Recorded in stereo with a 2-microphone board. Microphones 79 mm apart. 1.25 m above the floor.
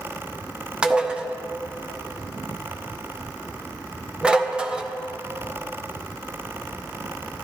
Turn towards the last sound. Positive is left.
turn(degrees=-15)  # may be behind; listen again after turning